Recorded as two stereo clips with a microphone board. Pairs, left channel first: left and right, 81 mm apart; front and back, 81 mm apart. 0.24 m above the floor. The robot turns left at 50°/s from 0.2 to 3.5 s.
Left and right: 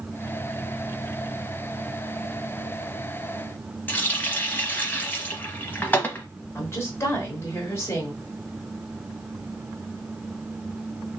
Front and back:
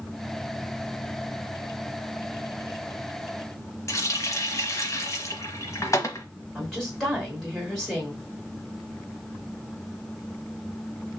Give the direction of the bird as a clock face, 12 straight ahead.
No bird in this recording.